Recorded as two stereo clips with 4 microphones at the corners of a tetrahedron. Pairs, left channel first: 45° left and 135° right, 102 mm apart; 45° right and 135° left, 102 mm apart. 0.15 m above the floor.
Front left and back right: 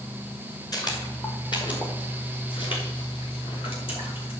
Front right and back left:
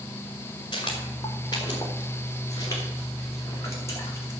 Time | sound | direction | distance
0.7 | footsteps | 5° right | 4 m